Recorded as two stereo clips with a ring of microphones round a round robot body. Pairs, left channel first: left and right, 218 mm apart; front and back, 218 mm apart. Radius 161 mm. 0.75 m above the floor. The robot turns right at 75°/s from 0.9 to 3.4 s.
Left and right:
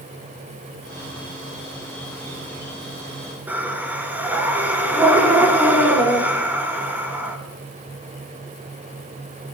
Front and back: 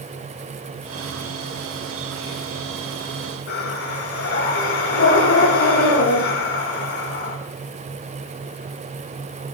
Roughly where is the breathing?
Ahead.